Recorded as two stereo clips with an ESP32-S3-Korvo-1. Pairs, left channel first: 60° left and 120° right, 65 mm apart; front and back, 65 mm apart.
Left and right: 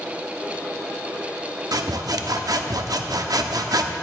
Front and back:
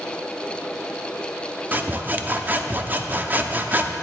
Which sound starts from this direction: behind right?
Sawing, at 1.7 s.